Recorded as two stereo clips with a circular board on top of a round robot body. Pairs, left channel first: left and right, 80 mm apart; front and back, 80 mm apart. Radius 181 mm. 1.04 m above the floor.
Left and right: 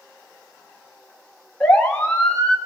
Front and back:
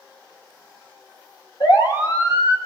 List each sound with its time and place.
1.6 s a siren: 15° left, 3 m